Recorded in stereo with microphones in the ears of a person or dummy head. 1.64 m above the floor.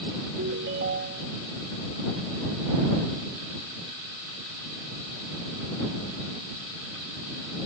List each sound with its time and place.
0.4 s a ringtone: 65° right (ahead or behind)